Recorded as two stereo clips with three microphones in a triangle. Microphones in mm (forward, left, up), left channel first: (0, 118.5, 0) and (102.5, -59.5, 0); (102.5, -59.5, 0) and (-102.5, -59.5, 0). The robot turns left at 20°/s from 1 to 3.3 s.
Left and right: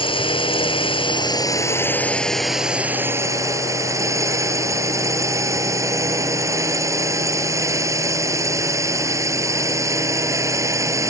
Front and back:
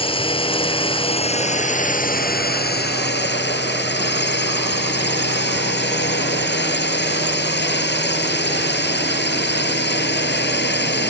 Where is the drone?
60° left; by 11.1 s 15° left.